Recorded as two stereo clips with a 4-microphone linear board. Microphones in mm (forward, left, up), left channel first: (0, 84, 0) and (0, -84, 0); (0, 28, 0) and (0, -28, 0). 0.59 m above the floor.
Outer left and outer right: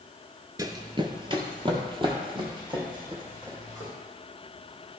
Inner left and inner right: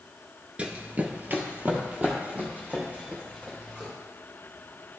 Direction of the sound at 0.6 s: 20° right (ahead or behind).